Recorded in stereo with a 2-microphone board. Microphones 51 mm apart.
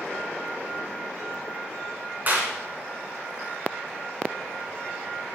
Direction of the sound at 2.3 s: 40° right (ahead or behind).